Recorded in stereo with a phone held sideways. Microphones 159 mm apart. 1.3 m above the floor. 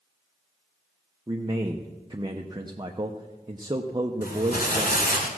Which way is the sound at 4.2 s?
70° left (ahead or behind).